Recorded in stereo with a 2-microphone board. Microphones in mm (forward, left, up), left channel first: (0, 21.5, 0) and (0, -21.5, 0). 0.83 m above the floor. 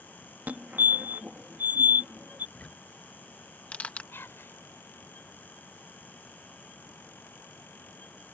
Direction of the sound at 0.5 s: 40° right (ahead or behind).